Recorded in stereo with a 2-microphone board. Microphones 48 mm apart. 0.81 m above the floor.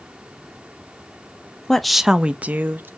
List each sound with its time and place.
1.7 s a woman speaking: 10° left (ahead or behind), 0.5 m; by 2.9 s 45° right (ahead or behind), 0.7 m